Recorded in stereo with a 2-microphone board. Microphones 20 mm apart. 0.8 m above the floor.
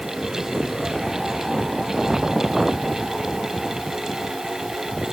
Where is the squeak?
No squeak in this recording.